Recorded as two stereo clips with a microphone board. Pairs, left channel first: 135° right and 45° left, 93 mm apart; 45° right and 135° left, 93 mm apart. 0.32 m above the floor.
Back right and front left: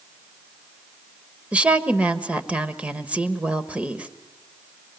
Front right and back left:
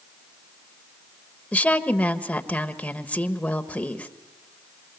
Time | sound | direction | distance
1.5 | a woman speaking | straight ahead | 1.2 m